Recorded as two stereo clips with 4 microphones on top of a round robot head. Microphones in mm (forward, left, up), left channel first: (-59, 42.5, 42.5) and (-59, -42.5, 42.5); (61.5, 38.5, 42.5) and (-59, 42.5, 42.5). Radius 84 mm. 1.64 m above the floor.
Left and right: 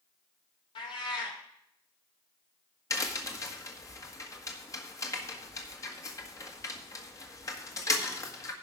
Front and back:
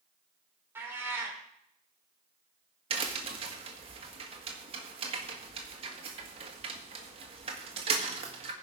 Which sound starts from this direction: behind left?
A crack, at 2.9 s.